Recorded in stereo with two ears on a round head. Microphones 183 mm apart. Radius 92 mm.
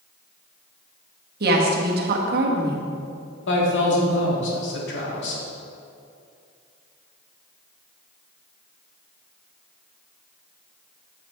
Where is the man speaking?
65° left (ahead or behind), 1.8 m.